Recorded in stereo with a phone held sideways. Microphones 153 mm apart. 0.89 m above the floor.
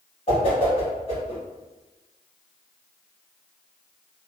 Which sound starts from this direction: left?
A whoosh, at 0.3 s.